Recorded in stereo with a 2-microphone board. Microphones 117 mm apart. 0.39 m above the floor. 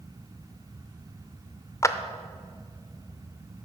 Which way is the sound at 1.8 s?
25° left (ahead or behind).